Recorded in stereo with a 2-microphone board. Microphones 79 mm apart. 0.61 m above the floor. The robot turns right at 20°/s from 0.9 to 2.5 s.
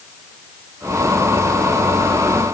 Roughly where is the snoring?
No snoring in this recording.